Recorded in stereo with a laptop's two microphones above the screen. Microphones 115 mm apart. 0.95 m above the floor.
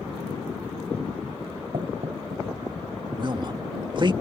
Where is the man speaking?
45° right (ahead or behind).